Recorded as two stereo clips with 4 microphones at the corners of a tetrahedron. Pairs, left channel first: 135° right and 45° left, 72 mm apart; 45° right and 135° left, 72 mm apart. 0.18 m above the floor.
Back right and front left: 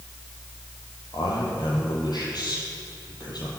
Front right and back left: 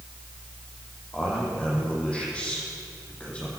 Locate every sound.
1.1 s a man speaking: 120° right, 8 m